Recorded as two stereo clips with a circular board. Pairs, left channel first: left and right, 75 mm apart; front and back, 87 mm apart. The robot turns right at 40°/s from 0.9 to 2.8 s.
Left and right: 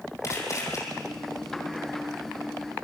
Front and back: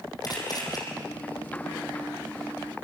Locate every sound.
0.2 s a camera shutter: 45° left, 6.5 m